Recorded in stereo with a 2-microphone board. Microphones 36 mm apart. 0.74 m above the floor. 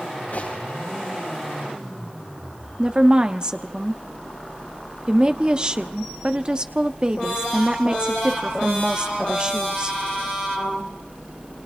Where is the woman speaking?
25° right (ahead or behind), 1.2 m.